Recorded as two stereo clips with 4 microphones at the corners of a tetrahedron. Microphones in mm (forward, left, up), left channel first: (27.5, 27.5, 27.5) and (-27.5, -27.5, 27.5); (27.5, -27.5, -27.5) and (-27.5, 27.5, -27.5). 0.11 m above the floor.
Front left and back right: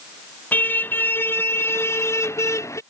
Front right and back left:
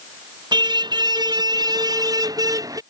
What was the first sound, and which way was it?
A car horn, 110° left.